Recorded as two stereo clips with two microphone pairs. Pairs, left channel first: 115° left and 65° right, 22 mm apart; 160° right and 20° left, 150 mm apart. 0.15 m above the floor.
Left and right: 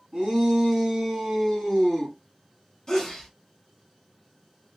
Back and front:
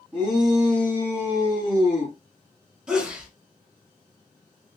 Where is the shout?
55° right, 1.5 m; by 2.1 s 155° right, 1.7 m.